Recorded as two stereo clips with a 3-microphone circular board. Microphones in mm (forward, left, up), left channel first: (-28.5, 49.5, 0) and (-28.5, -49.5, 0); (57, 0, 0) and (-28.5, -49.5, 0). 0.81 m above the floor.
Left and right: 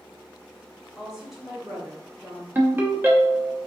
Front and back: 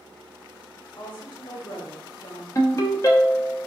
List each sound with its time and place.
1.0 s a woman speaking: 5° right, 1.3 m
2.5 s a ringtone: 25° right, 0.8 m